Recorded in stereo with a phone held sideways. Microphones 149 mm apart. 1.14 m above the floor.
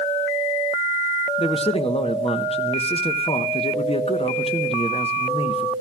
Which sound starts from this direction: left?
A man speaking, at 1.4 s.